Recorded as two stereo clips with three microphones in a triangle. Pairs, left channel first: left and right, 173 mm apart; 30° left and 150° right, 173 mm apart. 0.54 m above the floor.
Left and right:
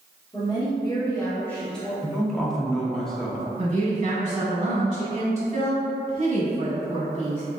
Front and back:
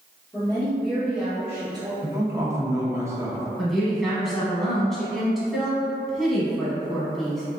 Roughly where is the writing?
I don't hear writing.